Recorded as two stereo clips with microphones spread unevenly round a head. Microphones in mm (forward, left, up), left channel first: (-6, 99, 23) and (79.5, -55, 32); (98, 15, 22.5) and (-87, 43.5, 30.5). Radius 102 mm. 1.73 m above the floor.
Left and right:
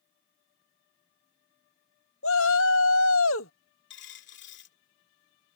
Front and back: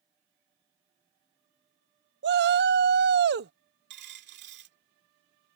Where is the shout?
145° left.